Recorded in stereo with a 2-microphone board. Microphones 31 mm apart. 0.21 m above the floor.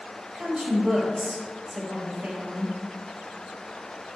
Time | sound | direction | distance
0.3 | a woman speaking | 15° right (ahead or behind) | 4 m